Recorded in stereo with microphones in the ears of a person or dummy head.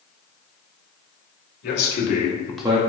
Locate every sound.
1.6 s a man speaking: 60° left (ahead or behind), 1.6 m; by 2.8 s 35° right (ahead or behind), 0.5 m